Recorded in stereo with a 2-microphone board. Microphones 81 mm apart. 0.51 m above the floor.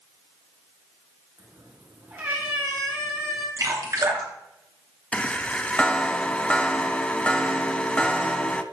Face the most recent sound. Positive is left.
turn(degrees=15)  # may be behind; listen again after turning